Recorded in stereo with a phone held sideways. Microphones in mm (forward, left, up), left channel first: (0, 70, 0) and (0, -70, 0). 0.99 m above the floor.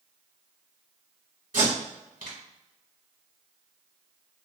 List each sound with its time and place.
1.5 s tape being pulled: 75° right (ahead or behind), 1.6 m